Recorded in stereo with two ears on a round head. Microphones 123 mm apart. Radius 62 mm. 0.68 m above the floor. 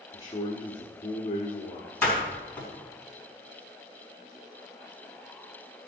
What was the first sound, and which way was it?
A man speaking, 30° left (ahead or behind).